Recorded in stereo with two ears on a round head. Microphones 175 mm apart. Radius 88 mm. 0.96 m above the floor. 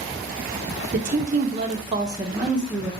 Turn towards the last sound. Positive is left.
turn(degrees=0)  # may be behind; listen again after turning